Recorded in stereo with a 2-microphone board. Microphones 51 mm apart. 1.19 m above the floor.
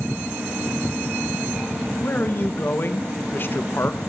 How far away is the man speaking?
About 1.2 m.